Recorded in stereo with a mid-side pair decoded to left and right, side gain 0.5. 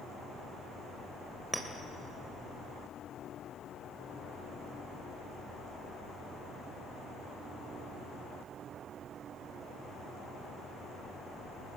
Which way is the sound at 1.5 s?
15° right.